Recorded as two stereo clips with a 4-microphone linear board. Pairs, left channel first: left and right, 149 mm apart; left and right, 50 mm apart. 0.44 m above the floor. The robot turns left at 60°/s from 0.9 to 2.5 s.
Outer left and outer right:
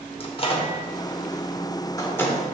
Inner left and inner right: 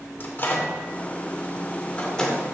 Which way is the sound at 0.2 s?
40° left (ahead or behind).